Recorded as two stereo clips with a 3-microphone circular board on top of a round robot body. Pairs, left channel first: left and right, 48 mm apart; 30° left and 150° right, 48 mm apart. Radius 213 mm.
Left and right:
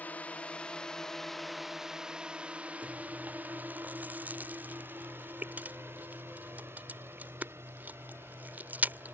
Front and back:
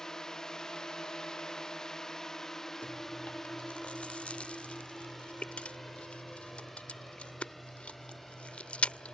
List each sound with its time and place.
0.0 s a drone: 100° left; by 9.1 s 55° right
2.8 s chewing: 35° right